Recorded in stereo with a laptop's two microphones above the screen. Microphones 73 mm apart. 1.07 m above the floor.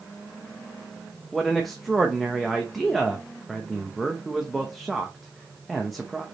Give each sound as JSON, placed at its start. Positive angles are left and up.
{"t": 1.3, "sound": "a man speaking", "side_deg": 0, "distance_m": 0.8}